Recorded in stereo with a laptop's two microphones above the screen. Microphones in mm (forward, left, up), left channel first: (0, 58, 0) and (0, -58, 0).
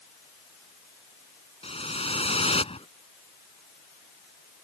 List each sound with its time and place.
1.6 s a whoosh: 55° left (ahead or behind)